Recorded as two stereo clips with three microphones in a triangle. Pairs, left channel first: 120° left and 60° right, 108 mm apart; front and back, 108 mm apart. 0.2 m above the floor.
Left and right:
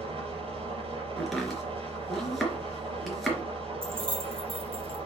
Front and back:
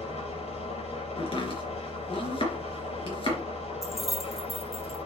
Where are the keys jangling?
90° right, 3 m.